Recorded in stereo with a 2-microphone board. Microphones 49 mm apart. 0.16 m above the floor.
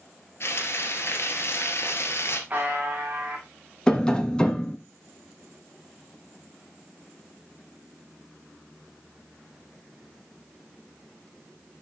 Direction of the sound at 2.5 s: 30° right (ahead or behind).